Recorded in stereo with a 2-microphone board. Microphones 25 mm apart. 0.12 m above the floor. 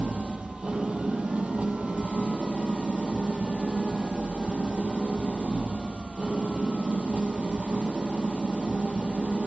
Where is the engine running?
55° right (ahead or behind), 1.0 m.